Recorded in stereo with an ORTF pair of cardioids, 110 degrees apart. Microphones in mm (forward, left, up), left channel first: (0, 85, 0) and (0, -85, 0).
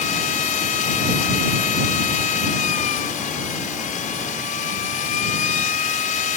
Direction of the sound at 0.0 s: 50° left.